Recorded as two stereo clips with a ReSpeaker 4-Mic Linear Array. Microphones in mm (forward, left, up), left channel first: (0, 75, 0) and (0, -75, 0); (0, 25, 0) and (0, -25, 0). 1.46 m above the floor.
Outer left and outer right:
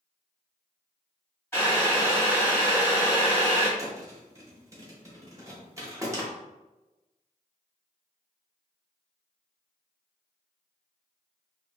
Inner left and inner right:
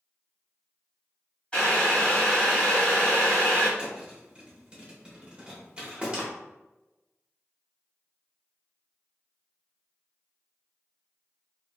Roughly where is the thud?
Right.